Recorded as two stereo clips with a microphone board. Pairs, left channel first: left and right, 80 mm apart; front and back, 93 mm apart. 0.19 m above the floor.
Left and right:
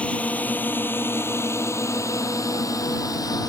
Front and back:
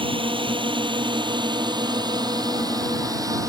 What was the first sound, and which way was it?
A drone, 165° left.